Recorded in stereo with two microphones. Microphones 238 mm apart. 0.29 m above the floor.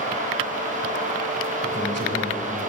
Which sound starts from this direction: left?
A man speaking, at 1.6 s.